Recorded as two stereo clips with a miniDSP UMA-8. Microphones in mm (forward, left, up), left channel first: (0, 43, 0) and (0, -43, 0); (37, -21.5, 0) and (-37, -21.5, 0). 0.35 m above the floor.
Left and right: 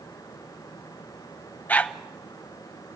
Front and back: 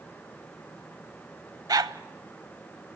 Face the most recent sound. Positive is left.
turn(degrees=160)